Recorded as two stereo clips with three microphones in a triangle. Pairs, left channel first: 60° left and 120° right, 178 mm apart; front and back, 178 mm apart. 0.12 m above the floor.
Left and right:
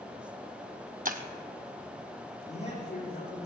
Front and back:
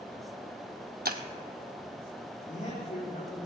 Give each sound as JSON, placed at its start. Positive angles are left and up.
{"t": 1.1, "sound": "breaking glass", "azimuth_deg": -155, "distance_m": 0.9}
{"t": 2.5, "sound": "a man speaking", "azimuth_deg": 45, "distance_m": 6.0}